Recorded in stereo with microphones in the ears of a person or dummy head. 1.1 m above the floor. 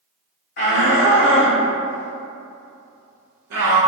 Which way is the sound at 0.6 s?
55° left (ahead or behind).